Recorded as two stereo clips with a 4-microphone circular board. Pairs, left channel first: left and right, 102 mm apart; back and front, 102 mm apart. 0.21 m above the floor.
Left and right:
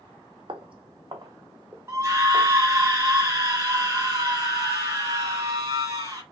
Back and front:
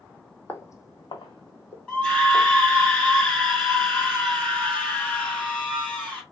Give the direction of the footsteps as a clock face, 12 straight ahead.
4 o'clock.